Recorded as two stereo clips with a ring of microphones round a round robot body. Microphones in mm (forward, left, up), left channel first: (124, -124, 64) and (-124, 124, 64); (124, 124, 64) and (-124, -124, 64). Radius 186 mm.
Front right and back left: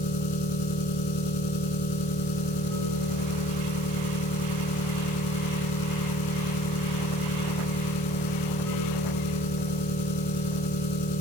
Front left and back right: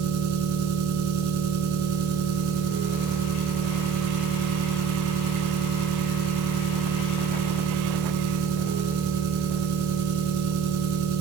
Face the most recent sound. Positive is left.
turn(degrees=-90)